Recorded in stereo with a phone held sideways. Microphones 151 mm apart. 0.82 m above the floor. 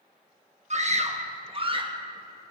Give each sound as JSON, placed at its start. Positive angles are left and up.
{"t": 0.7, "sound": "a scream", "side_deg": -50, "distance_m": 1.2}